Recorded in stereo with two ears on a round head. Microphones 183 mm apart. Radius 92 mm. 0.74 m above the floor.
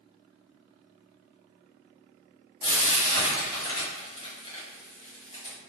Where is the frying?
25° left (ahead or behind), 1.2 m.